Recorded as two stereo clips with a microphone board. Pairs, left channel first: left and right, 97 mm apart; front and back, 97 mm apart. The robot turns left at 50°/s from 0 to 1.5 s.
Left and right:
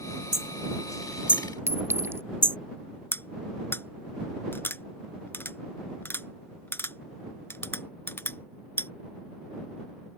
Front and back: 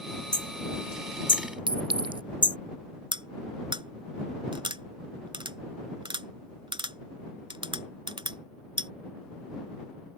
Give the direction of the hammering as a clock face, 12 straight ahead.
11 o'clock.